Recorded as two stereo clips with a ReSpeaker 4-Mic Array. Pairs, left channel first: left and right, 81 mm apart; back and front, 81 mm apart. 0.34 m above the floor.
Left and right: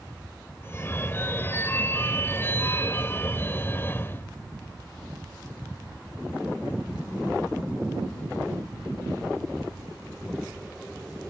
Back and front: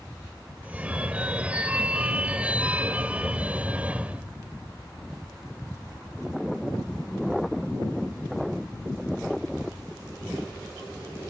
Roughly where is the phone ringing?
Ahead left.